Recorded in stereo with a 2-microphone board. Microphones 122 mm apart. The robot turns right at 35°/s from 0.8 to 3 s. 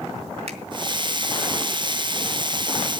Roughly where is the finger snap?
Right.